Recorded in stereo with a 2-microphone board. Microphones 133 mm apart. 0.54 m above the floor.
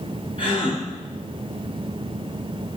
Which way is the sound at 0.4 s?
40° left (ahead or behind).